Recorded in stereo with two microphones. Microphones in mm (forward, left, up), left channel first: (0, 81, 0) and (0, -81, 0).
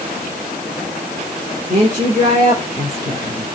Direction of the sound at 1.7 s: 45° right (ahead or behind).